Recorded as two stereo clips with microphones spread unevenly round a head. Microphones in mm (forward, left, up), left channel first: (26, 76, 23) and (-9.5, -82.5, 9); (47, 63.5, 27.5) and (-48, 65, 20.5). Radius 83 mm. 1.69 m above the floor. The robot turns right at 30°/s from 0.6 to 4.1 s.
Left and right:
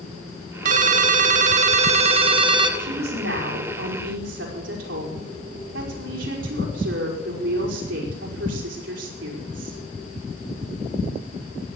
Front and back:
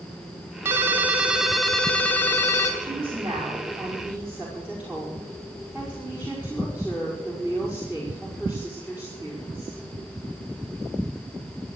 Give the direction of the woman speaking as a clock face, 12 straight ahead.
5 o'clock.